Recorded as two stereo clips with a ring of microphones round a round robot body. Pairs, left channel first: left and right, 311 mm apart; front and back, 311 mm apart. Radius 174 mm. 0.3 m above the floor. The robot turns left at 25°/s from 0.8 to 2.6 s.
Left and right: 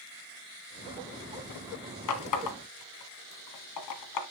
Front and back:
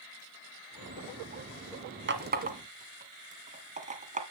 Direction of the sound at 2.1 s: 125° left.